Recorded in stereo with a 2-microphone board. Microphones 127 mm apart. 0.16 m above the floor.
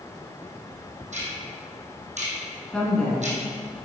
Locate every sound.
1.1 s ticking: 70° right (ahead or behind), 1.7 m
2.7 s a woman speaking: 5° left (ahead or behind), 1.7 m